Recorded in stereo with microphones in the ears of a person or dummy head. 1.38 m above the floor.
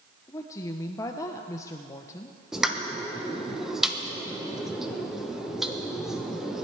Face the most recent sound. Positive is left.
turn(degrees=-5)  # may be behind; listen again after turning